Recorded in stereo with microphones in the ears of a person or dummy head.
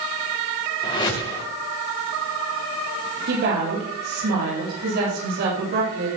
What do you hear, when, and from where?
0.8 s a whoosh: 20° left (ahead or behind), 2.5 m
3.3 s a woman speaking: 60° right (ahead or behind), 7 m